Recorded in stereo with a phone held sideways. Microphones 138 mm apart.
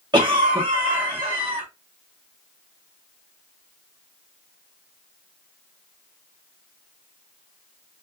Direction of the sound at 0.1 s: 35° right (ahead or behind).